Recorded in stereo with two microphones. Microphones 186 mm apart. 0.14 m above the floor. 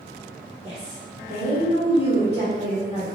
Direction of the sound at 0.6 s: 35° right (ahead or behind).